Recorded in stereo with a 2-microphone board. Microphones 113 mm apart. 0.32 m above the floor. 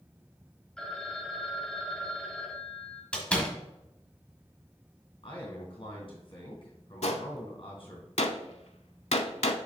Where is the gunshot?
70° left (ahead or behind), 0.6 m.